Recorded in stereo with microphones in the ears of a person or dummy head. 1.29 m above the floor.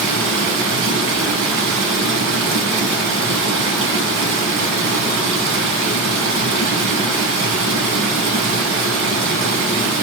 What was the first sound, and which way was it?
Running water, 55° right (ahead or behind).